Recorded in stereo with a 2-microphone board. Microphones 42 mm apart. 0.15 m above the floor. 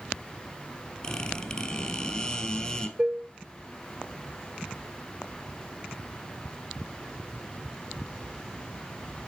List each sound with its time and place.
1.0 s a squeak: 20° left (ahead or behind), 1.7 m
3.0 s dishes clattering: 25° right (ahead or behind), 0.8 m